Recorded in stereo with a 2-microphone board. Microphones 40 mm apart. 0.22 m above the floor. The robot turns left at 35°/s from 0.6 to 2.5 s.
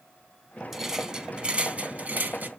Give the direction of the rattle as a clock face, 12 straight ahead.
12 o'clock.